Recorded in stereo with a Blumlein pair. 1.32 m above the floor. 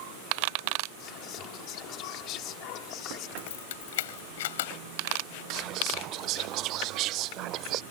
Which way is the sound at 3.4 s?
55° left.